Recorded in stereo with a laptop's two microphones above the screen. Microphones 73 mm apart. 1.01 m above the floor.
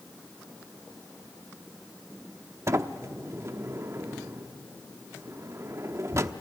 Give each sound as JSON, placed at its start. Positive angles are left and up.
{"t": 2.7, "sound": "a sliding door", "side_deg": -40, "distance_m": 0.8}